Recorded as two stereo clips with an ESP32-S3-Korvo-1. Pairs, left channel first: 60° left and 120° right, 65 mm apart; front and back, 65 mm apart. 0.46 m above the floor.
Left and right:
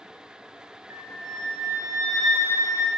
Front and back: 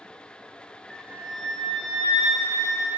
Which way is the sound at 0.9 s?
90° right.